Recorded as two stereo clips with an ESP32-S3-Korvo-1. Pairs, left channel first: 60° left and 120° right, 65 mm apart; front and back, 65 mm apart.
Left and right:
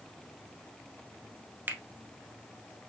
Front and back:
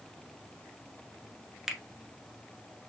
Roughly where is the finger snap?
Right.